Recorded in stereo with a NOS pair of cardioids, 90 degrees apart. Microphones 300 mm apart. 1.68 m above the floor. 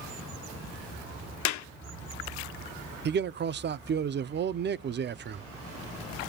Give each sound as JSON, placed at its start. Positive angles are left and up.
{"t": 1.4, "sound": "a clap", "azimuth_deg": 70, "distance_m": 0.7}
{"t": 3.0, "sound": "a man speaking", "azimuth_deg": -35, "distance_m": 0.5}